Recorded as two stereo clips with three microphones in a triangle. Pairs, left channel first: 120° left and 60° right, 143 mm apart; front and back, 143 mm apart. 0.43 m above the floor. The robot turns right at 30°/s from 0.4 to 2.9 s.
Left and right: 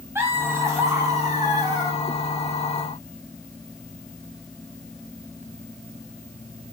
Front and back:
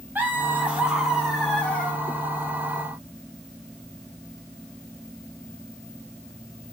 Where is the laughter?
115° right, 1.2 m; by 2.0 s 70° right, 1.2 m.